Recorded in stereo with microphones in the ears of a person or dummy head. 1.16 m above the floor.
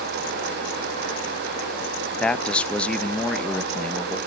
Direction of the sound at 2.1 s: Centre (ahead or behind).